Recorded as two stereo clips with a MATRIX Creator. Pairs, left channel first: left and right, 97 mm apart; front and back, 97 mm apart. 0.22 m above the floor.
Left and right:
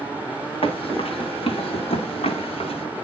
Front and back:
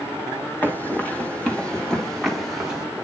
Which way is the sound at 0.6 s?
70° left.